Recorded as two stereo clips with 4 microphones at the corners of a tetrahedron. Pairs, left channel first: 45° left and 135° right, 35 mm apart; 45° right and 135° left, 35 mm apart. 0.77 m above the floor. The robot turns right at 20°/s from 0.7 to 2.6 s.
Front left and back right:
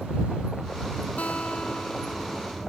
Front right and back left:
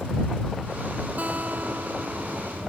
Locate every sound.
1.2 s a guitar: 95° left; by 2.7 s 125° left